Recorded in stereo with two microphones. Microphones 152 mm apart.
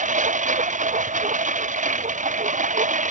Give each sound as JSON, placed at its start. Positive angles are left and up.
{"t": 0.0, "sound": "a lawn mower", "side_deg": -55}